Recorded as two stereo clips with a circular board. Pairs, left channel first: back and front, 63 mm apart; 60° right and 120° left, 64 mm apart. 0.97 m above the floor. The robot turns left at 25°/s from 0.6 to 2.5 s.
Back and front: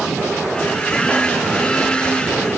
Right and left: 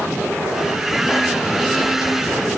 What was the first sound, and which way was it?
Only background noise.